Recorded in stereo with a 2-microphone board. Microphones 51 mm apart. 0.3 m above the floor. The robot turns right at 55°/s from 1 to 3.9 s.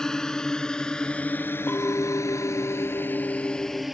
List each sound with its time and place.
0.0 s a drone: 10° left (ahead or behind); by 4.0 s centre (ahead or behind)
1.7 s a clink: 40° left; by 3.9 s 160° left